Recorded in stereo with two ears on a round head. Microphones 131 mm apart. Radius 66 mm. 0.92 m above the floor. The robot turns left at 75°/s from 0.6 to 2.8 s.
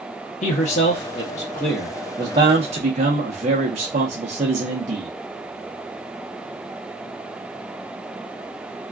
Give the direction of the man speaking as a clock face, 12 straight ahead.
9 o'clock.